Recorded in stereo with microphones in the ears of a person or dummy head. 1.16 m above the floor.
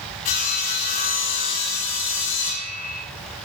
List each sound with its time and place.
0.2 s sawing: 45° left (ahead or behind), 7 m